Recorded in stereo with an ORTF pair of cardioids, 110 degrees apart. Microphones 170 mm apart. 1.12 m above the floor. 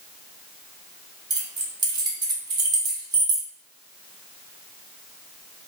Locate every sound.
1.3 s keys jangling: 25° right, 0.8 m